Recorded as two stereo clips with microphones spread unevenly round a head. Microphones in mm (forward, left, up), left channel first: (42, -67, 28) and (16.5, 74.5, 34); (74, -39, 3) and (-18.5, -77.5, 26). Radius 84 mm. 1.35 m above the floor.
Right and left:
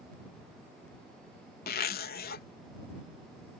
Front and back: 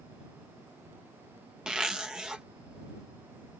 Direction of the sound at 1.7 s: 75° right.